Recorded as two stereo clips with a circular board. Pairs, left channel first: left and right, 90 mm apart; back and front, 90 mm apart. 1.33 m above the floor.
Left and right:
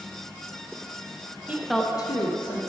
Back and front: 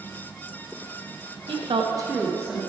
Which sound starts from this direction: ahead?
A woman speaking, at 1.5 s.